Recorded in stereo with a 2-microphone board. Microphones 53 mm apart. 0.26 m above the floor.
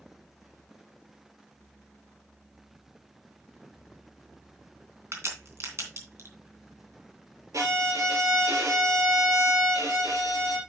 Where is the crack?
55° right (ahead or behind), 3 m.